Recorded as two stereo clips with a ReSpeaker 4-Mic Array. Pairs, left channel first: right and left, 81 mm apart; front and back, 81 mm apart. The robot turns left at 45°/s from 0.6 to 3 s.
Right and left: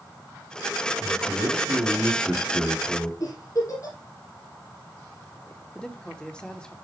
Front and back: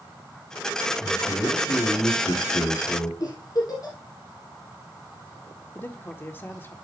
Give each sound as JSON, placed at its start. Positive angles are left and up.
{"t": 1.0, "sound": "a man speaking", "azimuth_deg": 60, "distance_m": 4.5}
{"t": 3.2, "sound": "a giggle", "azimuth_deg": -40, "distance_m": 4.5}
{"t": 5.8, "sound": "a man speaking", "azimuth_deg": -25, "distance_m": 1.1}